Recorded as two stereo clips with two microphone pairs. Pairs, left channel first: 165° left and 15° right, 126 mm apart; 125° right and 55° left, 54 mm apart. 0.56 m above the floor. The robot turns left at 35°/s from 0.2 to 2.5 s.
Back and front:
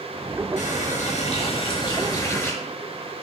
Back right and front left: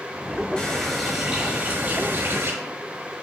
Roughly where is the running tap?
Behind.